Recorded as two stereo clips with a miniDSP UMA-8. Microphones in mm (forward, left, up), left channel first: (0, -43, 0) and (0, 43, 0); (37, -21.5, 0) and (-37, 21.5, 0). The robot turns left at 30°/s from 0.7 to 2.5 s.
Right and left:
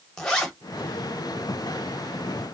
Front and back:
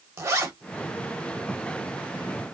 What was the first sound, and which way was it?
A zipper, 170° right.